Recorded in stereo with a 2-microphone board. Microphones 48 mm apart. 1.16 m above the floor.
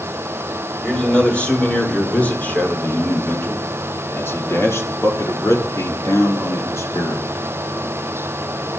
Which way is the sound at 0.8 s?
20° left (ahead or behind).